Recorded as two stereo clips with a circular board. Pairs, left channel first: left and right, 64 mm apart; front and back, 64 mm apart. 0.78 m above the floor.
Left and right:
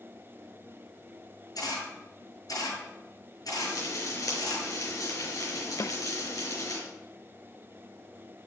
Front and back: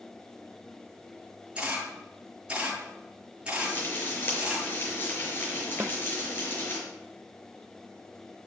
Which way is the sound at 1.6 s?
110° left.